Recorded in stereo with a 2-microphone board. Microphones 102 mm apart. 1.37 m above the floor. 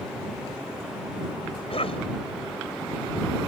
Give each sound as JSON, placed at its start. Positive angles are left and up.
{"t": 1.7, "sound": "a cough", "side_deg": 70}